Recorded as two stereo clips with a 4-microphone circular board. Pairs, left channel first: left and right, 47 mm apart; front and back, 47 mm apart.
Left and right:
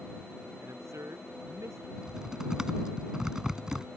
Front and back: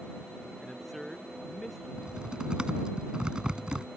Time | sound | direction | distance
0.6 | a man speaking | 90° right | ?
2.0 | typing on a keyboard | 145° right | ?